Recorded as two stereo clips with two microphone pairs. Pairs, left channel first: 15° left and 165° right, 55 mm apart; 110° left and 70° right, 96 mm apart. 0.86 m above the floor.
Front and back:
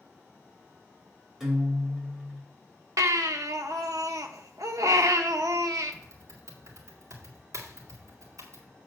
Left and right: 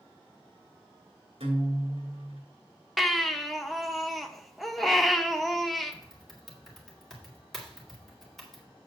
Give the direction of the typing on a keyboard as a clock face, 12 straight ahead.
5 o'clock.